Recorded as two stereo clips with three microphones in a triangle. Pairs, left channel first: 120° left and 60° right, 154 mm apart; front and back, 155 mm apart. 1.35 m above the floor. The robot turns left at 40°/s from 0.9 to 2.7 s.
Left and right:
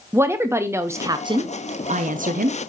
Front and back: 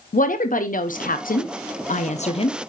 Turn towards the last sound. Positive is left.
turn(degrees=-60)